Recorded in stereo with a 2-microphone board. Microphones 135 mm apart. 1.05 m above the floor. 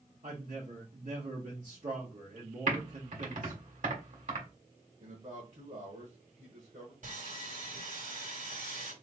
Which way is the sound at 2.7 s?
65° right (ahead or behind).